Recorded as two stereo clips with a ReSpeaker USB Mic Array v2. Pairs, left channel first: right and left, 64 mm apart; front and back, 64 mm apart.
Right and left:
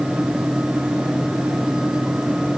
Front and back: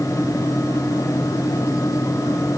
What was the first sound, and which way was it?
Only background noise.